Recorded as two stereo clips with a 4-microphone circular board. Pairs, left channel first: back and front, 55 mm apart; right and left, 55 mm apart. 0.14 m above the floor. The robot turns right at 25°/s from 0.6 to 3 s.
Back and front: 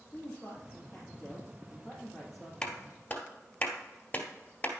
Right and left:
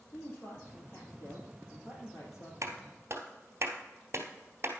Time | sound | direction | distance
0.1 | a woman speaking | 140° right | 4 m
2.6 | a clap | 110° left | 1.9 m